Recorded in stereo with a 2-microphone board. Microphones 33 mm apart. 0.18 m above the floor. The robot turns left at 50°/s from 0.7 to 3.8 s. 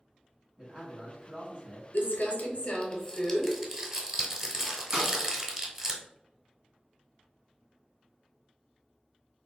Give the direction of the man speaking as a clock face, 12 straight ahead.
1 o'clock.